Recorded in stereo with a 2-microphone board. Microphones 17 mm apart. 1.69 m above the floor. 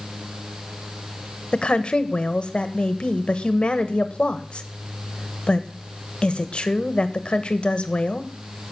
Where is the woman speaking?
70° left (ahead or behind), 1.5 m.